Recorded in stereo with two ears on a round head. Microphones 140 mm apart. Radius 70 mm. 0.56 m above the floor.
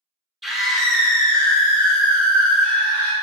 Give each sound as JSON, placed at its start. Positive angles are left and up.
{"t": 0.4, "sound": "a scream", "side_deg": 0, "distance_m": 1.7}